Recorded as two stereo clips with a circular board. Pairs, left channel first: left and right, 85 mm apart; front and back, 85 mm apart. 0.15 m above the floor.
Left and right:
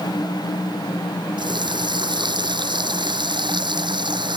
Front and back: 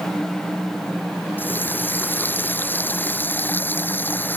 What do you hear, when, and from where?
1.4 s a running tap: 65° right